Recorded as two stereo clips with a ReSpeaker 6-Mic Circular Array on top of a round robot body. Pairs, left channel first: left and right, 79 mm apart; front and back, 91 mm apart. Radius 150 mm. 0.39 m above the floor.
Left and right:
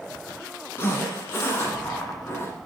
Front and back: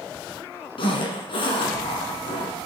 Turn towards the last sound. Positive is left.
turn(degrees=30)